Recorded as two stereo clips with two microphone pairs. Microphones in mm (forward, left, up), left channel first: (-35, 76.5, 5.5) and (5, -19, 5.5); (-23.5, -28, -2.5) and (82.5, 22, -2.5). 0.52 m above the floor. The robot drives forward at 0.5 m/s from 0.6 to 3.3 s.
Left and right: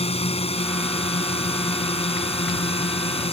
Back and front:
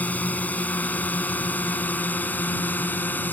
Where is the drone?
130° left.